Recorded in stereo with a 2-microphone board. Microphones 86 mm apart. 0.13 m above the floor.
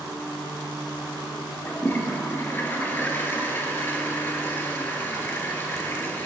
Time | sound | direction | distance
1.6 | a toilet flushing | 25° left (ahead or behind) | 1.0 m